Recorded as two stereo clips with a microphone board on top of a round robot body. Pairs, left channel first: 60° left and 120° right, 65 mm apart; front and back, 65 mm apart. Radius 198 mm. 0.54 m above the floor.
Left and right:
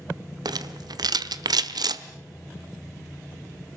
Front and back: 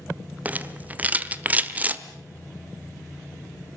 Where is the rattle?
110° right, 1.2 m.